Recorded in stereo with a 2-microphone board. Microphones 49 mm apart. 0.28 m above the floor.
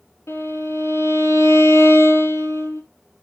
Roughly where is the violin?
Left.